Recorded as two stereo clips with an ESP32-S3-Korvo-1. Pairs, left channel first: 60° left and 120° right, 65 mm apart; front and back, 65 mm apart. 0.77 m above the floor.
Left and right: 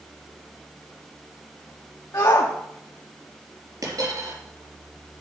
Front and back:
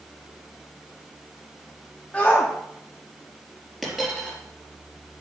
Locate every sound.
2.1 s a shout: 65° left, 1.0 m
3.8 s a dropped coin: 90° right, 4.5 m